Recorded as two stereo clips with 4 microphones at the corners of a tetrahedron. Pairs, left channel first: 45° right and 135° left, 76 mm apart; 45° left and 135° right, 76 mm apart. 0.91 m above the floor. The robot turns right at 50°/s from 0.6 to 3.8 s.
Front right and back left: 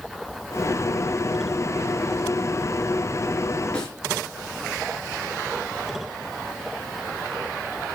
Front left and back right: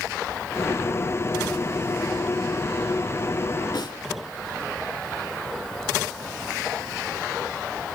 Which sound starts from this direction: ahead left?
A snare drum, at 3.7 s.